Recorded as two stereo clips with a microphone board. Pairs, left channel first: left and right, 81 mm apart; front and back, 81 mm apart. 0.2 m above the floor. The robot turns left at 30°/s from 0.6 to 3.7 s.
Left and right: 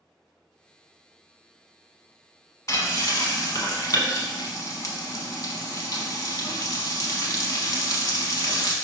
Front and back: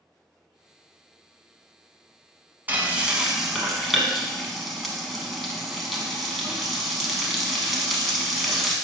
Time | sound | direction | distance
2.7 | frying | 120° left | 0.8 m